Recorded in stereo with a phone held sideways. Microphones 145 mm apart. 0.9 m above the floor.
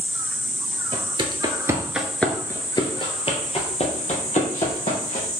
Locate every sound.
0.9 s footsteps: 40° right (ahead or behind), 1.1 m; by 5.3 s 55° left (ahead or behind), 2.5 m